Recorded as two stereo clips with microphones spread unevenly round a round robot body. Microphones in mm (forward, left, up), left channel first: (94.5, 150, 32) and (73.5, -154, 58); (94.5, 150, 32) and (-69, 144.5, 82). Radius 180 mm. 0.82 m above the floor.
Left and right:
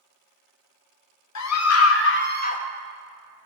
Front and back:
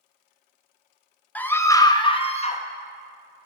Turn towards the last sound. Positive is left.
turn(degrees=25)